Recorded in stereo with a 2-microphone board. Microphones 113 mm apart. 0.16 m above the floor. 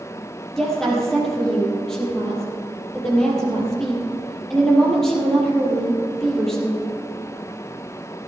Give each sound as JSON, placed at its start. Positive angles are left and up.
{"t": 0.6, "sound": "a woman speaking", "side_deg": 5, "distance_m": 5.0}